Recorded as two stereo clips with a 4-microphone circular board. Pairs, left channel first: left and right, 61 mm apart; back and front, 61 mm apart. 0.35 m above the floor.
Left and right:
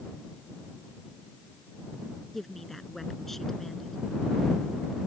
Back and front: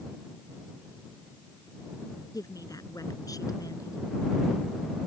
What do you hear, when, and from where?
2.3 s a woman speaking: 175° left